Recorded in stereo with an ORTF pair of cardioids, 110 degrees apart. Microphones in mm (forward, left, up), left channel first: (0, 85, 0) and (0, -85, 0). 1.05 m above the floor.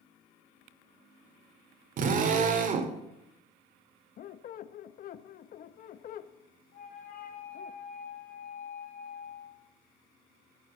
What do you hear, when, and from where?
2.0 s a drill: 50° right, 2 m
4.2 s a squeak: 55° left, 0.8 m
6.7 s a flute: 55° left, 4 m